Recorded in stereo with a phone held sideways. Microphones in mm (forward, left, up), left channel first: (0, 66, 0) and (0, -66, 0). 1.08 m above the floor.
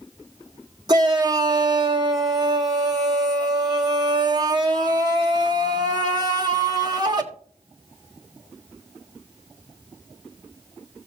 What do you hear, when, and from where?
0.9 s a shout: 30° right (ahead or behind), 1.6 m